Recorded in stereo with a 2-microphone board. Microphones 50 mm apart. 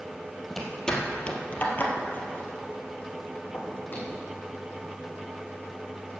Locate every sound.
0.5 s footsteps: 5° left (ahead or behind), 2 m; by 4.2 s 40° left (ahead or behind), 4.5 m